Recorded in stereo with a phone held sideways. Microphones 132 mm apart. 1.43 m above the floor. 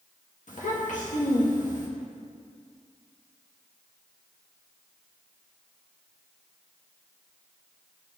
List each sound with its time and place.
0.5 s a child speaking: 80° left, 1.6 m